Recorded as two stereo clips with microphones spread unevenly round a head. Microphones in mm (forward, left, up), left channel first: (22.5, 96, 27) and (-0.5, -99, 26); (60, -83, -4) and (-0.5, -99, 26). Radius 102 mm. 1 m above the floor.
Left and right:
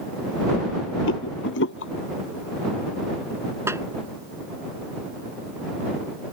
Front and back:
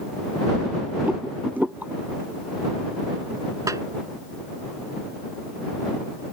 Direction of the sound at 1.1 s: 115° left.